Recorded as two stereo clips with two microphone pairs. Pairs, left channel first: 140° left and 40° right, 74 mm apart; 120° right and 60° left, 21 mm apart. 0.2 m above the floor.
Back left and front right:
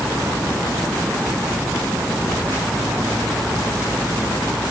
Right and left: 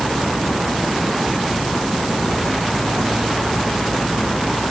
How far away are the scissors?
I don't hear scissors.